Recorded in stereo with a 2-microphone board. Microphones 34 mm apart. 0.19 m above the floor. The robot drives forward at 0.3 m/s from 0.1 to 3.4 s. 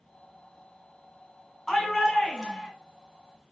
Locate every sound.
1.7 s a shout: 10° left (ahead or behind), 2 m; by 2.7 s 15° left (ahead or behind), 2.0 m